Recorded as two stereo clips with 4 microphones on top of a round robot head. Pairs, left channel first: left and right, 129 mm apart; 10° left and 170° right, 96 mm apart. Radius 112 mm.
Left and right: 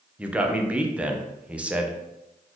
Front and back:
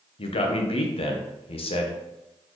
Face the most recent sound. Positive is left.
turn(degrees=-10)